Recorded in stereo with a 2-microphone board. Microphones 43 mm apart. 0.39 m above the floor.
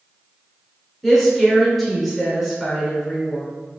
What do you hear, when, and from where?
1.0 s a woman speaking: 5° left (ahead or behind), 1.4 m